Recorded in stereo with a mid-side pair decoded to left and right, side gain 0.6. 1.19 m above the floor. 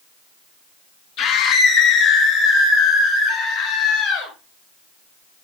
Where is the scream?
65° left, 0.8 m; by 4.3 s 75° left, 3.5 m.